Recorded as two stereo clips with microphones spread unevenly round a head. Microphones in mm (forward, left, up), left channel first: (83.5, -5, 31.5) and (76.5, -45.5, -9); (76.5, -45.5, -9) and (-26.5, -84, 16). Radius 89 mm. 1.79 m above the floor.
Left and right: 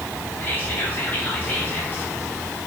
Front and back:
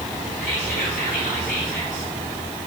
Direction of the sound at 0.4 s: 55° left.